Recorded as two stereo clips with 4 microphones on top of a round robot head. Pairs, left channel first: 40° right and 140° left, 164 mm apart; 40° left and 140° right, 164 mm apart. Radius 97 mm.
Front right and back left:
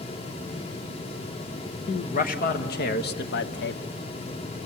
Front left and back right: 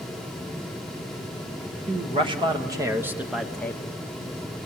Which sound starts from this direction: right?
A man speaking, at 1.9 s.